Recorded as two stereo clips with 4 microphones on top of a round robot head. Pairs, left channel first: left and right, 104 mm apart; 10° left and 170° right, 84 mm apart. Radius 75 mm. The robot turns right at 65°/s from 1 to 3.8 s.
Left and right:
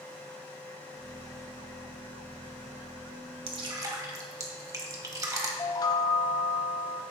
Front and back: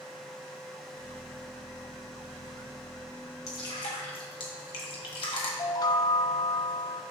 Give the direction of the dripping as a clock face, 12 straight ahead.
2 o'clock.